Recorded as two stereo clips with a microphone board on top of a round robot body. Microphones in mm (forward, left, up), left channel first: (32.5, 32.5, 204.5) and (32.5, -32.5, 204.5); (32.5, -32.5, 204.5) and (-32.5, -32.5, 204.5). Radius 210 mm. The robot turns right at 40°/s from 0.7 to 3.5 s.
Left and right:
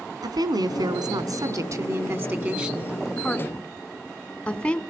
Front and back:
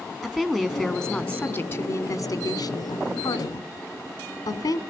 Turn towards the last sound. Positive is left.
turn(degrees=15)